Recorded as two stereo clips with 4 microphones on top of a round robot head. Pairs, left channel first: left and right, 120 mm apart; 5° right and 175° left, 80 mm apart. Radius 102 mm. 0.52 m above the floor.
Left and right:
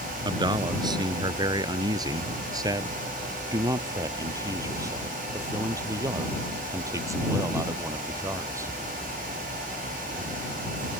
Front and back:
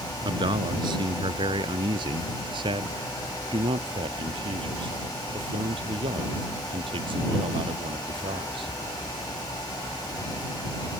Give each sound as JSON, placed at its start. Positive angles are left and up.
{"t": 0.2, "sound": "a man speaking", "azimuth_deg": -145}